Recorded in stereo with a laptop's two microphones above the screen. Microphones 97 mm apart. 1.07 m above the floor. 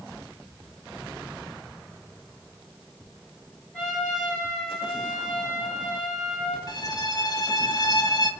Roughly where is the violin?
Left.